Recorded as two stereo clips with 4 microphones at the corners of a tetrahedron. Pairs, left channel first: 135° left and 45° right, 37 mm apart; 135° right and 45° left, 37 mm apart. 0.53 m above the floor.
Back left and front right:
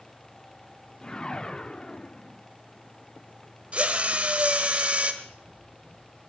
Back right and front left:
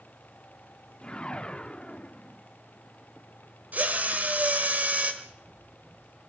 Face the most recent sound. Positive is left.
turn(degrees=85)